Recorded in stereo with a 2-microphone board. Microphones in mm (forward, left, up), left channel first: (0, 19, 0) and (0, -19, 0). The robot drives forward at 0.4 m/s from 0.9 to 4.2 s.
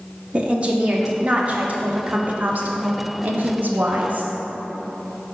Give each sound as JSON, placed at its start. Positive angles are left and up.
{"t": 0.3, "sound": "a woman speaking", "side_deg": -30, "distance_m": 1.4}